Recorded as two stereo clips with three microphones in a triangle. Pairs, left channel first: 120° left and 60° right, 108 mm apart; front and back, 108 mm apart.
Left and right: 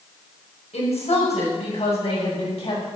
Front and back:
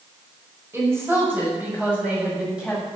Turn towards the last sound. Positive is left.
turn(degrees=95)